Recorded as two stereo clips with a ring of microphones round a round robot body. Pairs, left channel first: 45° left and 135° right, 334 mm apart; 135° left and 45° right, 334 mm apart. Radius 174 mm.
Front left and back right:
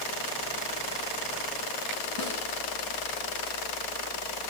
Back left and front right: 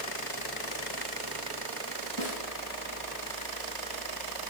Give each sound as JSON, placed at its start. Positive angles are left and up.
{"t": 2.2, "sound": "a snare drum", "azimuth_deg": -165, "distance_m": 8.0}